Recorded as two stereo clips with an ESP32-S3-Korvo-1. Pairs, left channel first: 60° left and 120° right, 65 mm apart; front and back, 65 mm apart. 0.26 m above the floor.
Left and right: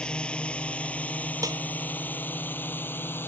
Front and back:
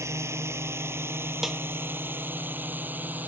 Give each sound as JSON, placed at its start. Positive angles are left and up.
{"t": 0.0, "sound": "a drone", "azimuth_deg": 135}
{"t": 1.4, "sound": "a snare drum", "azimuth_deg": -95}